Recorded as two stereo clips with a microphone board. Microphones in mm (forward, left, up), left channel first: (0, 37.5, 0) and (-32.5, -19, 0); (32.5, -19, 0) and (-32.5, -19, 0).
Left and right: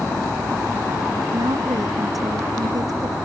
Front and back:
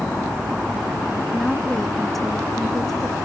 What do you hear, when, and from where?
1.3 s a woman speaking: 85° right